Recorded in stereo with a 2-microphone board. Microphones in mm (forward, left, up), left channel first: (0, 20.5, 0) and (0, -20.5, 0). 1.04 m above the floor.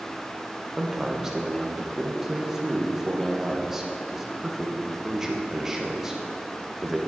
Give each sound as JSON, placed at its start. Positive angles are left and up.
{"t": 0.8, "sound": "a man speaking", "side_deg": -10, "distance_m": 1.0}